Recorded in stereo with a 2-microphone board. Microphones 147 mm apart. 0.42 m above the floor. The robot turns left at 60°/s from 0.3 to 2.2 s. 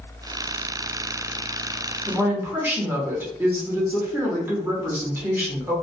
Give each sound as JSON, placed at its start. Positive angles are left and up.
{"t": 2.1, "sound": "a woman speaking", "side_deg": -15, "distance_m": 0.8}